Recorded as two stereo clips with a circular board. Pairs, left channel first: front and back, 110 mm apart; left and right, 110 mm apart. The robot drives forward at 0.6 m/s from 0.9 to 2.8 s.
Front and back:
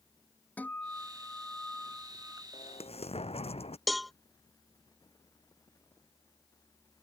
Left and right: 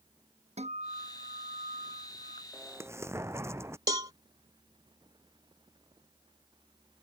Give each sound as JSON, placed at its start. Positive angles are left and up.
{"t": 0.6, "sound": "a guitar", "azimuth_deg": -75}
{"t": 2.5, "sound": "an explosion", "azimuth_deg": -20}
{"t": 3.9, "sound": "a cowbell", "azimuth_deg": -90}